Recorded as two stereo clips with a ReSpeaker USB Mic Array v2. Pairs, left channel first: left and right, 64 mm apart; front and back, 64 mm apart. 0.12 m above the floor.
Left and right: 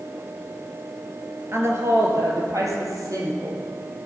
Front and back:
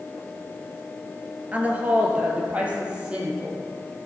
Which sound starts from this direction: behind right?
A woman speaking, at 1.5 s.